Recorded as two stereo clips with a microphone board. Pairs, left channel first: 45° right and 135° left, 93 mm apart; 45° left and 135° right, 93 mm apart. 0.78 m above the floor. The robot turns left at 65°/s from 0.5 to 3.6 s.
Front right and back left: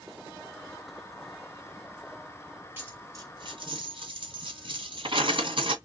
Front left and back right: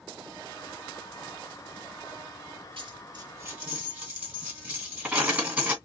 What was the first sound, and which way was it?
A dropped coin, 155° right.